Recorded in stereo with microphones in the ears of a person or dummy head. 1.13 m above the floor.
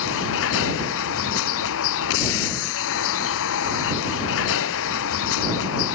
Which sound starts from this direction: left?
A vehicle, at 0.0 s.